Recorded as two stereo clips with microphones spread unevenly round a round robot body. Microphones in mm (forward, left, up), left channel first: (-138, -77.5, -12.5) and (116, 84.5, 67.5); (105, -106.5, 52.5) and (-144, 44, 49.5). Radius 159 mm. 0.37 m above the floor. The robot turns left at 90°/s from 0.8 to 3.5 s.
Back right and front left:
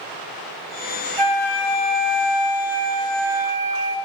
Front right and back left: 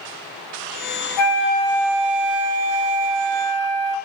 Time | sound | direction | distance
1.2 | a flute | 60° right | 0.6 m